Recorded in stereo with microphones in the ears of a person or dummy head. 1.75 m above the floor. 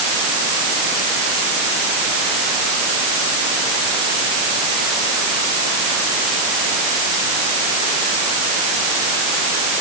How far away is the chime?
I don't hear a chime.